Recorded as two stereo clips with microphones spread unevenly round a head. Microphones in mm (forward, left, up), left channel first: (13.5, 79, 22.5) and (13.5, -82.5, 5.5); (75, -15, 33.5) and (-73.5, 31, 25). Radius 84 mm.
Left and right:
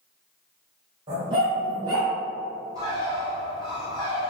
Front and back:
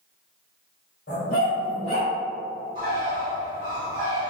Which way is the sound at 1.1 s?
35° right.